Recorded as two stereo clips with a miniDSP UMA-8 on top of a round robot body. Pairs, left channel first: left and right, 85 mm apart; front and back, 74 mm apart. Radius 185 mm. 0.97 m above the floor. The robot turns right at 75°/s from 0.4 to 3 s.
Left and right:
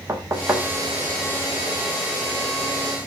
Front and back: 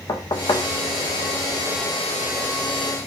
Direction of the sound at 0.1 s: 30° right.